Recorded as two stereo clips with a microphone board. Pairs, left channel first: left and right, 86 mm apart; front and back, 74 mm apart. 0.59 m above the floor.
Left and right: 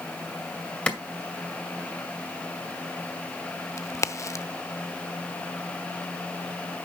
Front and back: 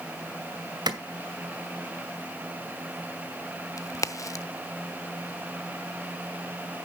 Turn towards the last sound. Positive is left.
turn(degrees=40)